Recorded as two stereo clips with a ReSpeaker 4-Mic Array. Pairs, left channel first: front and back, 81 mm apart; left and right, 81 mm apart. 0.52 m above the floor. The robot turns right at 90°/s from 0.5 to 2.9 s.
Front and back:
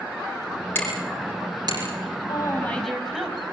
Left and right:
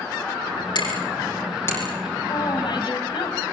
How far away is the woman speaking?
About 4.5 m.